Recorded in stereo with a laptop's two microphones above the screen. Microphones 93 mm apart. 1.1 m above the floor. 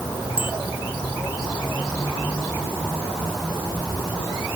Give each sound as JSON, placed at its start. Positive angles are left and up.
{"t": 0.4, "sound": "a bicycle bell", "side_deg": 70}